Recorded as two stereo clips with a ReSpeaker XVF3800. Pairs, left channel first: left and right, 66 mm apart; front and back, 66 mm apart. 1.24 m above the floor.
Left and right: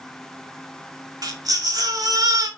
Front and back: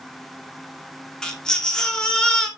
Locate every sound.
1.2 s a baby crying: 80° right, 2 m